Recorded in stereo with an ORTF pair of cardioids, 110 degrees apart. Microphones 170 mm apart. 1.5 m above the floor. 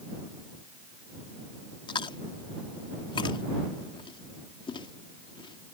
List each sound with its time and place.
1.9 s chewing: 30° left